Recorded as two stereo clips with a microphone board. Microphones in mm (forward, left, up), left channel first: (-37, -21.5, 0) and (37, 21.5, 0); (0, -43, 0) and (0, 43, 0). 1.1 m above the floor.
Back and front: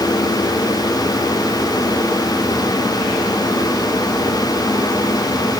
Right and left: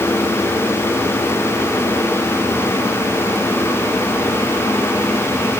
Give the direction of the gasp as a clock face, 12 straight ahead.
I don't hear a gasp.